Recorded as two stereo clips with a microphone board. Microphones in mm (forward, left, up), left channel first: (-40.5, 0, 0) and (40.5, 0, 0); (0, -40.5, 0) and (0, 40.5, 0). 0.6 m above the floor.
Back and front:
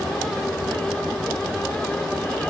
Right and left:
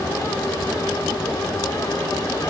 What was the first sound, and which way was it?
Only background noise.